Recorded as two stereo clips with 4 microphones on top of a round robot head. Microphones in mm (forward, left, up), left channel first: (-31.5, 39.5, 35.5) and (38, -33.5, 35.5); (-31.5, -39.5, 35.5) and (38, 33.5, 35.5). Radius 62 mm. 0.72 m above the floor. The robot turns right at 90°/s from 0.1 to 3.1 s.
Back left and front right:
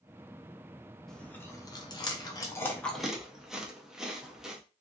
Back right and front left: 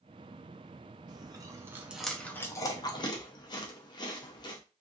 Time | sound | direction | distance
1.1 | chewing | 50° left | 0.6 m